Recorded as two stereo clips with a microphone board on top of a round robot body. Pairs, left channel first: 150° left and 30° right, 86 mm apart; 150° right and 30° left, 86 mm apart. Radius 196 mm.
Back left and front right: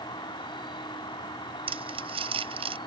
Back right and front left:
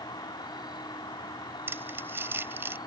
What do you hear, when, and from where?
0.0 s an insect: 175° left
1.7 s crumpling: 35° right